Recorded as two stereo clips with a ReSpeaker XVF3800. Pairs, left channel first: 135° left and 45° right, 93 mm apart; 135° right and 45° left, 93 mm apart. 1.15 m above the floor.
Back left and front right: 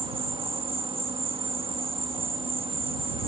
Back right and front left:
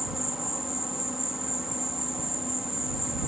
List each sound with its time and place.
0.0 s an insect: 40° right